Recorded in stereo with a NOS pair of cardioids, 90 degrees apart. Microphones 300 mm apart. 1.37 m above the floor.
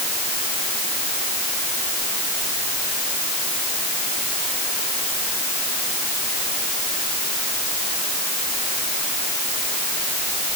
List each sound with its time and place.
Only background noise.